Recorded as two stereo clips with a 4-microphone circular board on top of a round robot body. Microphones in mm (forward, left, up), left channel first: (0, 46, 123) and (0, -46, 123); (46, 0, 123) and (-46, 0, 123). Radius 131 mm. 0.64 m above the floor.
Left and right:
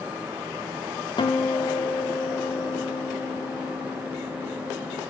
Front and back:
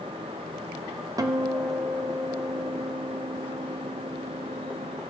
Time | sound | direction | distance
1.2 | a guitar | 125° left | 0.6 m